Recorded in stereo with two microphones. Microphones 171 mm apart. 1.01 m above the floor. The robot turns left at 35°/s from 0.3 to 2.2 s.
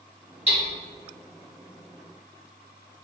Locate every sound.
0.5 s hammering: 40° right (ahead or behind), 1.6 m; by 0.6 s 35° right (ahead or behind), 1.6 m